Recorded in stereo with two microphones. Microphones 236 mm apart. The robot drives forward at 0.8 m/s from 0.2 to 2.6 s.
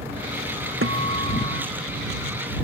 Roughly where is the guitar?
Right.